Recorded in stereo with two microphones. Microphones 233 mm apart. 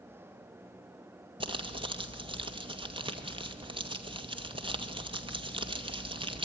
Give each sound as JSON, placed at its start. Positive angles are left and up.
{"t": 1.4, "sound": "crumpling", "side_deg": -20, "distance_m": 2.0}